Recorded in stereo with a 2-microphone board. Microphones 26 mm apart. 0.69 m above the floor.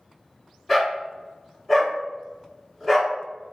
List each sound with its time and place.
0.7 s a dog barking: 5° left (ahead or behind), 2.0 m